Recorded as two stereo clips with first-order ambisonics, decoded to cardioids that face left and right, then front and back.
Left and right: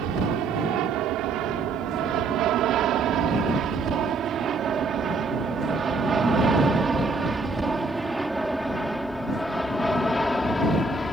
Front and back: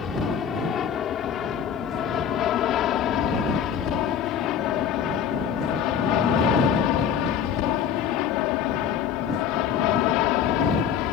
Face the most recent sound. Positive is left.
turn(degrees=15)